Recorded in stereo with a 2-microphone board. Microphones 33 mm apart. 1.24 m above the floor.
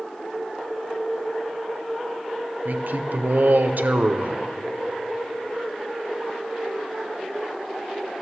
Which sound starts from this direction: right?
A man speaking, at 2.6 s.